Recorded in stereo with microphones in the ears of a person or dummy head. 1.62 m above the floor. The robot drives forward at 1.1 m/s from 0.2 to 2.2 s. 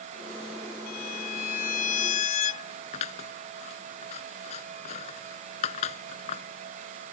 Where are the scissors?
35° left (ahead or behind).